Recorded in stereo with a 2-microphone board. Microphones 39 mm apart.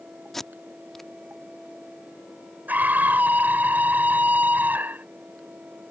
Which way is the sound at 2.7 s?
55° right (ahead or behind).